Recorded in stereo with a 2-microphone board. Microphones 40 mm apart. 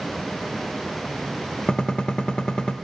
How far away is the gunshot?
About 0.5 m.